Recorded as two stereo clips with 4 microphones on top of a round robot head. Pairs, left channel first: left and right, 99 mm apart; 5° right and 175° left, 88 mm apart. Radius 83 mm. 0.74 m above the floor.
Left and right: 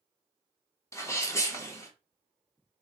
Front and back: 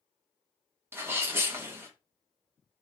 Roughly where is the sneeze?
Behind left.